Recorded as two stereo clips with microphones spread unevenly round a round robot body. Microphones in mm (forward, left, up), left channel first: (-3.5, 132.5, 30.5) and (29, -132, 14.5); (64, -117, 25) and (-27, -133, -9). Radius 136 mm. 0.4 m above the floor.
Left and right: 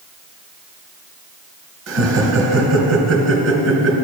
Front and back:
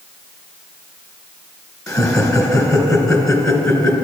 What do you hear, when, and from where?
1.9 s laughter: 50° right, 3 m